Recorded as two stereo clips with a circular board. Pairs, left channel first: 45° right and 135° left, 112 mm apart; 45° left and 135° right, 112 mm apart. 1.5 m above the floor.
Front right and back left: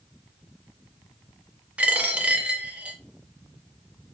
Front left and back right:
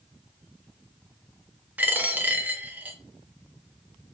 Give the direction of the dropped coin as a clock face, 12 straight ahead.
6 o'clock.